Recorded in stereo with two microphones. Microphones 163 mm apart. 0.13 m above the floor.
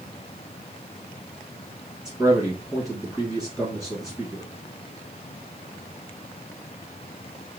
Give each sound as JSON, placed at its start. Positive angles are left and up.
{"t": 2.0, "sound": "a man speaking", "side_deg": -5, "distance_m": 1.2}